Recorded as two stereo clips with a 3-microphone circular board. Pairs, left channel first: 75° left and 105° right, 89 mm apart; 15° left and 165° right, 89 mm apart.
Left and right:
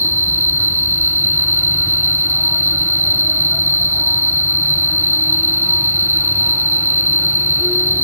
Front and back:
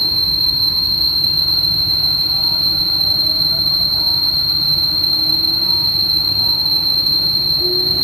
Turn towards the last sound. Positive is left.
turn(degrees=-165)